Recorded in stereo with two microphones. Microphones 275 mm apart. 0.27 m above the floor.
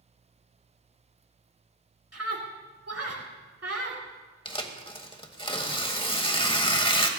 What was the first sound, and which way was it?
A scream, 65° right (ahead or behind).